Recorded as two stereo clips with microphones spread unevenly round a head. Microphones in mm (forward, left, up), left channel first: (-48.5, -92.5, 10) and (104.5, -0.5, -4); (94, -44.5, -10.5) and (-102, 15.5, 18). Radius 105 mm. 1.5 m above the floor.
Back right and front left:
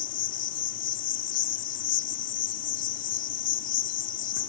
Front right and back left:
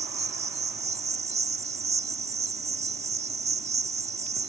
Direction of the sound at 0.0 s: 135° right.